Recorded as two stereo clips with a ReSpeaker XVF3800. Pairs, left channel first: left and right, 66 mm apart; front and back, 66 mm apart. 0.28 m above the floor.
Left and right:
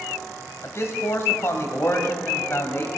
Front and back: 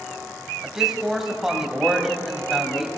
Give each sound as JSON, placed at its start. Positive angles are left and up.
{"t": 0.6, "sound": "a man speaking", "azimuth_deg": 100, "distance_m": 1.2}